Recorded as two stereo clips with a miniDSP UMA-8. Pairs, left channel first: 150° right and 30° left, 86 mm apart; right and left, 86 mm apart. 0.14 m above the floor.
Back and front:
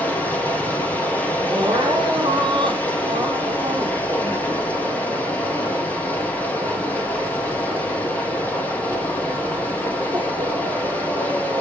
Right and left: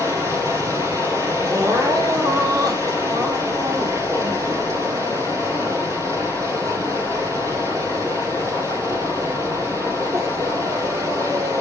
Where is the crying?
45° left, 1.8 m.